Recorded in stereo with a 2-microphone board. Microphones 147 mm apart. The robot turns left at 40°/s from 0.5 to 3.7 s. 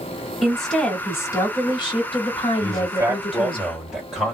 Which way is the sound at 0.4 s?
Straight behind.